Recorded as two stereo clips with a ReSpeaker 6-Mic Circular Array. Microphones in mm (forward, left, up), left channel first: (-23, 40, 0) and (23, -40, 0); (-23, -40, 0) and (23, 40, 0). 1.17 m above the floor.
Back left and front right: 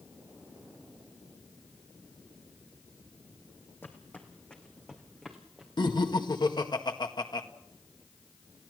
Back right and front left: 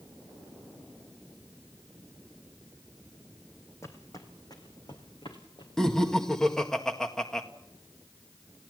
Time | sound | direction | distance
3.8 | footsteps | 175° right | 2.5 m
5.8 | laughter | 155° left | 1.8 m